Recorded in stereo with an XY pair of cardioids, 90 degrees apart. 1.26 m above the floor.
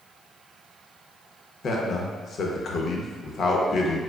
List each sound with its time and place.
1.6 s a man speaking: 60° left, 0.7 m